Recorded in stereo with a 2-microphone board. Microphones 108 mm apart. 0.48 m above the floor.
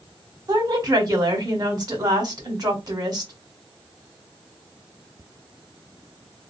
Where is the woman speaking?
40° right (ahead or behind), 1.4 m.